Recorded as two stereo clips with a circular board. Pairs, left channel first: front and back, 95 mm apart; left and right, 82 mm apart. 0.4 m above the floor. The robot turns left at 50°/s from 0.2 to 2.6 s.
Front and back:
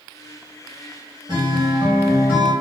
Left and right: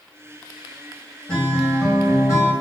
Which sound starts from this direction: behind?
A guitar, at 1.3 s.